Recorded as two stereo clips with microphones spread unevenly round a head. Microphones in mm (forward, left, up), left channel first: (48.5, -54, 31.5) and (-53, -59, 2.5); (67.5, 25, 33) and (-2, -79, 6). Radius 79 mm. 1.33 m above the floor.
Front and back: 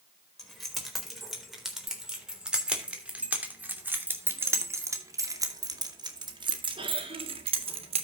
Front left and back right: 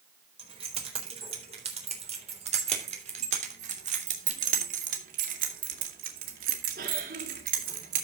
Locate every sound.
0.4 s keys jangling: 80° right, 4 m; by 8.0 s 160° right, 2 m